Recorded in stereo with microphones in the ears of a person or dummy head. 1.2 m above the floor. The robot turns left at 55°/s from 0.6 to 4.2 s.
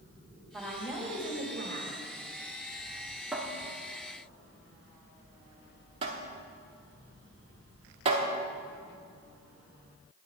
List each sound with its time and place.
0.5 s a woman speaking: 5° right, 1.9 m; by 1.9 s 75° right, 1.9 m
3.3 s a cupboard door: 5° right (ahead or behind), 0.8 m; by 8.3 s 35° right (ahead or behind), 0.8 m